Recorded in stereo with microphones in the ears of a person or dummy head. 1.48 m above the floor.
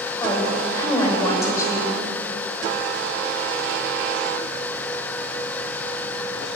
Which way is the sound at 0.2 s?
20° left (ahead or behind).